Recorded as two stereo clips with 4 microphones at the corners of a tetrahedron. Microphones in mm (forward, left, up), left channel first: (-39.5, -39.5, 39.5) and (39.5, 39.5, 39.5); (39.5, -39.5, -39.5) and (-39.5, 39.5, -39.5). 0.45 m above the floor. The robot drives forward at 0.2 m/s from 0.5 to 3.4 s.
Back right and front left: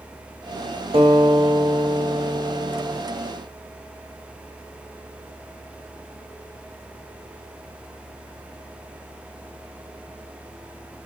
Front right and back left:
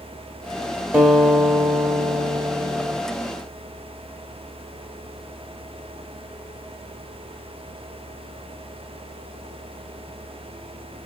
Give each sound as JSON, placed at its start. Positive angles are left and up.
{"t": 0.9, "sound": "a guitar", "azimuth_deg": 60, "distance_m": 1.0}